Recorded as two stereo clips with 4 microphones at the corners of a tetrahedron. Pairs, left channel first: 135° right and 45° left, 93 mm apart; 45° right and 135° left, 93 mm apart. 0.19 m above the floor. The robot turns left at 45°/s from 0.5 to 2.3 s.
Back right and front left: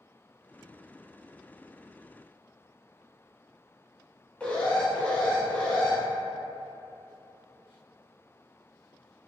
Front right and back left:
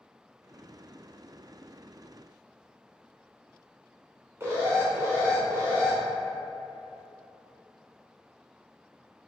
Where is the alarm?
160° left, 0.8 m.